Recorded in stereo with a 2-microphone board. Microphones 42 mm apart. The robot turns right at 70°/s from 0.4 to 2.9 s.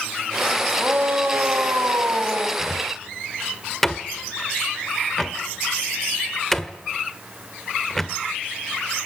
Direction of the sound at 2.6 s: 10° right (ahead or behind).